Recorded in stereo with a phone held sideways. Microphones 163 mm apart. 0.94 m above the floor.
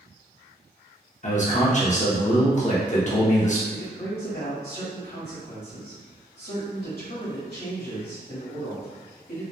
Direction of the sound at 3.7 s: 65° left (ahead or behind).